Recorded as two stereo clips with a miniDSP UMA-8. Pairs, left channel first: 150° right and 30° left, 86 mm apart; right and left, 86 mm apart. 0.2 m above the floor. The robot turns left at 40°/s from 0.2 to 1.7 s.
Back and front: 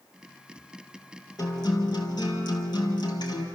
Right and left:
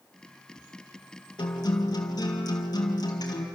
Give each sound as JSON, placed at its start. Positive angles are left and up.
{"t": 1.4, "sound": "a guitar", "azimuth_deg": -110, "distance_m": 3.0}